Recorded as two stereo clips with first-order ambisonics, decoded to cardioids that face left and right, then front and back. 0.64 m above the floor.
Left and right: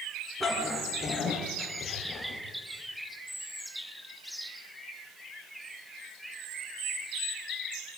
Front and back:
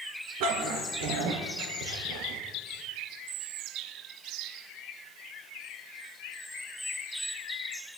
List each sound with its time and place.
0.4 s a dog barking: 175° right, 4.5 m; by 2.4 s 165° left, 5.5 m